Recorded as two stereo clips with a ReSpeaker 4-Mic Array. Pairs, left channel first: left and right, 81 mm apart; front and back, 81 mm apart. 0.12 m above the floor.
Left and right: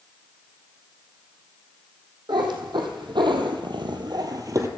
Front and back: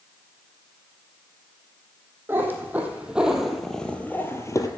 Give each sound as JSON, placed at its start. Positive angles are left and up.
{"t": 2.3, "sound": "a cat meowing", "azimuth_deg": -115, "distance_m": 1.9}